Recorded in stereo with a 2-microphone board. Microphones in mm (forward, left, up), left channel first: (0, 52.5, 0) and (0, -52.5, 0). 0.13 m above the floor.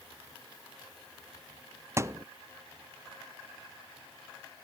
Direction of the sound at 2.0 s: 25° right (ahead or behind).